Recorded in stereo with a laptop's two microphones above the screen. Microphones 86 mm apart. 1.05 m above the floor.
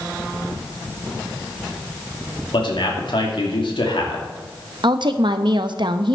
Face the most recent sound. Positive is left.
turn(degrees=-65)  # may be behind; listen again after turning